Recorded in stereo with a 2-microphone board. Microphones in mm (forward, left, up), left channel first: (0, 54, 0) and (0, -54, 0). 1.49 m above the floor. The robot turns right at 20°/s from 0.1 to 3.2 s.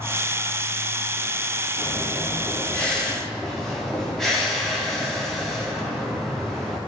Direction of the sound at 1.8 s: 30° left (ahead or behind).